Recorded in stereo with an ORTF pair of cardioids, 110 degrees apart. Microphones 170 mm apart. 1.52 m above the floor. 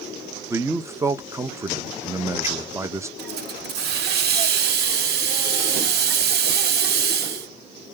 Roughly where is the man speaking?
Ahead.